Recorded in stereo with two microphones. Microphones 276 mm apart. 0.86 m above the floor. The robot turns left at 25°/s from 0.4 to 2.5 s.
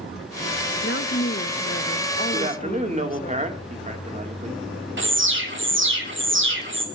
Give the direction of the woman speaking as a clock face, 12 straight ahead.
9 o'clock.